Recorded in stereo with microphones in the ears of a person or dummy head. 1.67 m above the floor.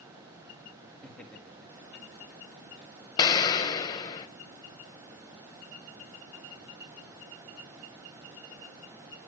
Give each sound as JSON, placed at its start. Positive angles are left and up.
{"t": 1.0, "sound": "laughter", "side_deg": 10, "distance_m": 3.0}
{"t": 3.2, "sound": "an explosion", "side_deg": 20, "distance_m": 0.9}